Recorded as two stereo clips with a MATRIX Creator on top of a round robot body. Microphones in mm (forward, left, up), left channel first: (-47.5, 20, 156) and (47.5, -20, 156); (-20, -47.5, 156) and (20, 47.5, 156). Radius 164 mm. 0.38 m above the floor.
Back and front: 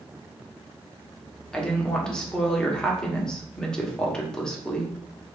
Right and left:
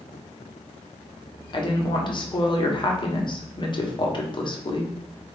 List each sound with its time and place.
1.5 s a woman speaking: 125° right, 1.2 m